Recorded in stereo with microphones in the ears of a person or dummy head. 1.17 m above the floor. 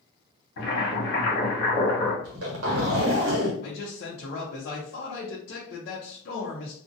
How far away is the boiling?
About 1.3 m.